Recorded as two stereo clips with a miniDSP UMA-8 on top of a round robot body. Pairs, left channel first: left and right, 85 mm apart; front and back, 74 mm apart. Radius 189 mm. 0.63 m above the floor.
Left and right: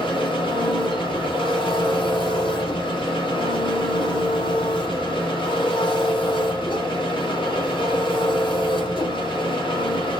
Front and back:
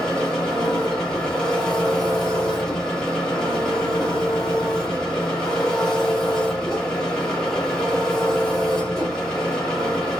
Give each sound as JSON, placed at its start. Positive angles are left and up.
{"t": 0.0, "sound": "an engine running", "azimuth_deg": 80, "distance_m": 1.5}